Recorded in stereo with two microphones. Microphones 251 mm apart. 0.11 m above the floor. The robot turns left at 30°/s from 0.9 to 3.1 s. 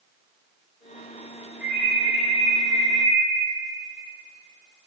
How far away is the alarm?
About 4 m.